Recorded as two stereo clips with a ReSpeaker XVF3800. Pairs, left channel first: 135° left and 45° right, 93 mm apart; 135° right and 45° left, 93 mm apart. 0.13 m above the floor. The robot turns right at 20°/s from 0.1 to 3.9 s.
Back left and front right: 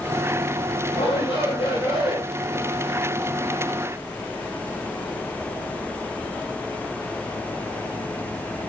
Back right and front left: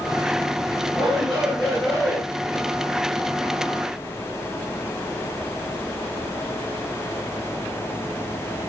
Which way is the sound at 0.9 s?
130° left.